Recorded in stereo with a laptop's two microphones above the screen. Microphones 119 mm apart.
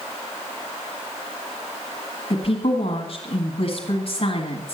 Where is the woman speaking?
50° left (ahead or behind), 1.6 m.